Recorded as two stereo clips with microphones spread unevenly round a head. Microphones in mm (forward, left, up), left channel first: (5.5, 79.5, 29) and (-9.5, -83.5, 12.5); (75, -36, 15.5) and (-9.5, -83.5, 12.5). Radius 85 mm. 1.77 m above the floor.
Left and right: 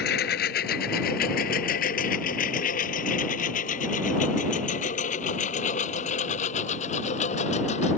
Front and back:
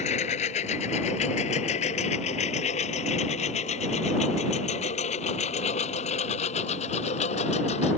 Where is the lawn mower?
55° left; by 8.0 s 35° left.